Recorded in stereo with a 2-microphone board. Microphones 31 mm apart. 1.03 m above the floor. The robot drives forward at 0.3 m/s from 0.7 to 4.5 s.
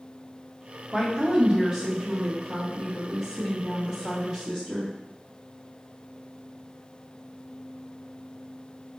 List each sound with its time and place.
0.9 s a woman speaking: 20° right (ahead or behind), 0.7 m; by 4.9 s 10° right (ahead or behind), 1.5 m